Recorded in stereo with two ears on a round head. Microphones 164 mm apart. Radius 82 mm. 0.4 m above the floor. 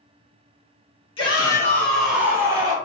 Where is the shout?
30° left (ahead or behind), 1.1 m; by 2.8 s 25° right (ahead or behind), 1.0 m.